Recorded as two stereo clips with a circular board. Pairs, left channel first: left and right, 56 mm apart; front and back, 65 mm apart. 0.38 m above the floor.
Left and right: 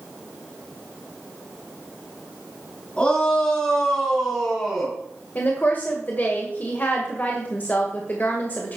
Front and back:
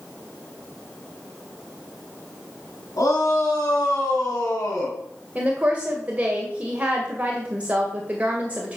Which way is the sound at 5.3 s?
125° left.